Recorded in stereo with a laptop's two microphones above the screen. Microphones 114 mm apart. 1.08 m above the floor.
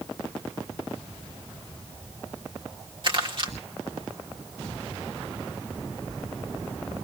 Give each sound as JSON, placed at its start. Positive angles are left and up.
{"t": 3.0, "sound": "crumpling", "side_deg": -45, "distance_m": 2.5}